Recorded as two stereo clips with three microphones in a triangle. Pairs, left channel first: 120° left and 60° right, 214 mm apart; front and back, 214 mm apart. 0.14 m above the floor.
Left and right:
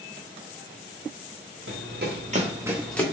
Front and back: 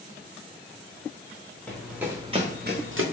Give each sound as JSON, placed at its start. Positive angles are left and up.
{"t": 1.7, "sound": "running footsteps", "azimuth_deg": -85, "distance_m": 1.6}